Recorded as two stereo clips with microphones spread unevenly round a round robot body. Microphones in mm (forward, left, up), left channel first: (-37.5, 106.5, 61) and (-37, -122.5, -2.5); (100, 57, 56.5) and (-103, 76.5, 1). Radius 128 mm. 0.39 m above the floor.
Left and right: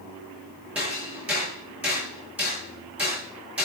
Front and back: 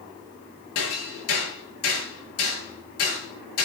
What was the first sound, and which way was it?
Hammering, 5° right.